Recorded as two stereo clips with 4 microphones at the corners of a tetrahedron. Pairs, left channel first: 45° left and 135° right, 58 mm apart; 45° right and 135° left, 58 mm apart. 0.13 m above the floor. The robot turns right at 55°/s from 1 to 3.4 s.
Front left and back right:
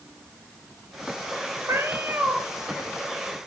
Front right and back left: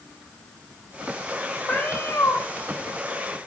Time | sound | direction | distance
1.7 | a cat meowing | 110° right | 1.7 m